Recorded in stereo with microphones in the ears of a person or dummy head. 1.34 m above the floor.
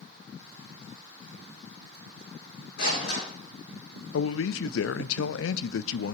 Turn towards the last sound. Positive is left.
turn(degrees=75)  # may be behind; listen again after turning